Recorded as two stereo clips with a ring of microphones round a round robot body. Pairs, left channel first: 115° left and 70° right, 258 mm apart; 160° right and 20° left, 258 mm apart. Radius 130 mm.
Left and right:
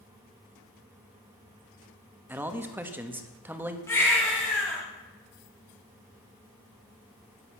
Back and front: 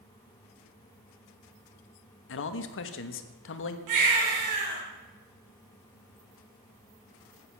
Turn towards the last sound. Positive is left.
turn(degrees=30)